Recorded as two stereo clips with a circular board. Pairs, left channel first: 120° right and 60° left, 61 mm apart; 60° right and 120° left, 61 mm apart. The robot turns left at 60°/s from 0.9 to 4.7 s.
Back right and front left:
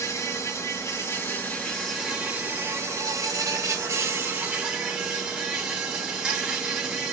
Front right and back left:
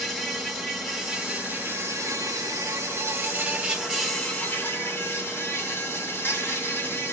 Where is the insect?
140° right, 1.8 m; by 7.1 s 10° right, 1.8 m.